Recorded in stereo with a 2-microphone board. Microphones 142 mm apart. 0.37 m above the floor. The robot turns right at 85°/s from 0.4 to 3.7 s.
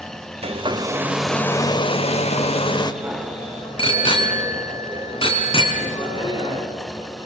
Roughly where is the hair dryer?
Right.